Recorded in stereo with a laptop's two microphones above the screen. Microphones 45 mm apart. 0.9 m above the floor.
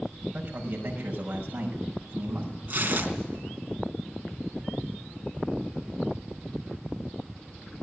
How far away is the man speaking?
About 5.5 m.